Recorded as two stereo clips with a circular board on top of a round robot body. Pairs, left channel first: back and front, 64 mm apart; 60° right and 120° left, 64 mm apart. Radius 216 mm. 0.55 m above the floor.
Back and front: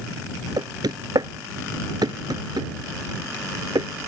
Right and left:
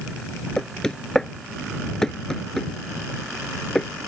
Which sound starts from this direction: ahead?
Knocking, at 0.6 s.